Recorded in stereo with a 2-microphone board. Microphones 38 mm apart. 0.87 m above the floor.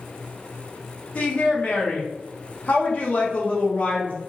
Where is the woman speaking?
40° left (ahead or behind), 1.0 m.